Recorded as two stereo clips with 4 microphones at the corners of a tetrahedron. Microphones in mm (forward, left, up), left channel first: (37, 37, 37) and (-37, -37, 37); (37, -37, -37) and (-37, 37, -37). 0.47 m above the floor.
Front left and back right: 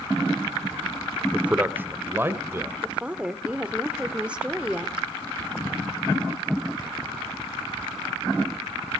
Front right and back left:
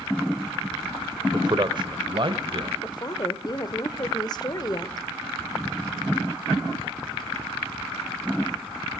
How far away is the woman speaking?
About 1.7 m.